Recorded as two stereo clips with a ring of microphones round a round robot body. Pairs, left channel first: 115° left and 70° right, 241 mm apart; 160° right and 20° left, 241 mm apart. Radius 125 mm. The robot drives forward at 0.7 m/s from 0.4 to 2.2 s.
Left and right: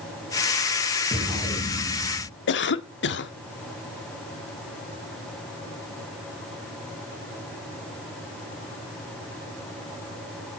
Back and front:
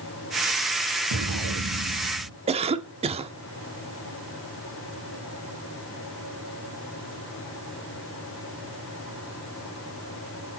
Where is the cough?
85° left, 1.4 m.